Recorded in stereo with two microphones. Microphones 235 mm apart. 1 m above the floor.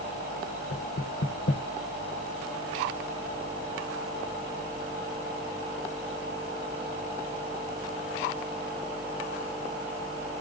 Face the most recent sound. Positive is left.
turn(degrees=60)  # may be behind; listen again after turning